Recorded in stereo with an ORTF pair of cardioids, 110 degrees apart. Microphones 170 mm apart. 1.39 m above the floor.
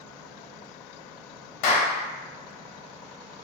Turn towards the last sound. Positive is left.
turn(degrees=60)